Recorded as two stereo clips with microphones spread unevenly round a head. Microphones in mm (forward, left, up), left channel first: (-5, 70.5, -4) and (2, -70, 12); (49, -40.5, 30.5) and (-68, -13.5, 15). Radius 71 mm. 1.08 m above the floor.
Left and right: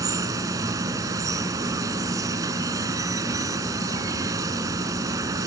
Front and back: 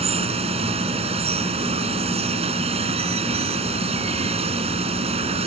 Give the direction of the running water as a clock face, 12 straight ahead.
5 o'clock.